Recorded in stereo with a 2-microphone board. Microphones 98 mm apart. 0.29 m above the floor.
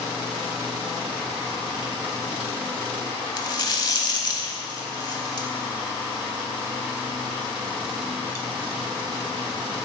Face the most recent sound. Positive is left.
turn(degrees=40)  # may be behind; listen again after turning